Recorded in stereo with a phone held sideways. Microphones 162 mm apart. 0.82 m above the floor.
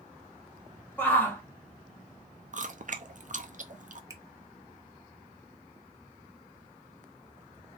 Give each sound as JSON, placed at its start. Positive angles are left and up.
{"t": 1.0, "sound": "a shout", "side_deg": 15, "distance_m": 1.4}
{"t": 2.5, "sound": "chewing", "side_deg": -55, "distance_m": 0.6}
{"t": 4.1, "sound": "a finger snap", "side_deg": -20, "distance_m": 0.9}